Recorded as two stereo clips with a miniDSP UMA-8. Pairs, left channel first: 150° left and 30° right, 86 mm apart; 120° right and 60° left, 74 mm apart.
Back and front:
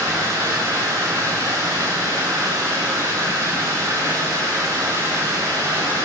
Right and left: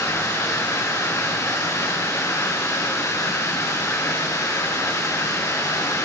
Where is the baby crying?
I don't hear a baby crying.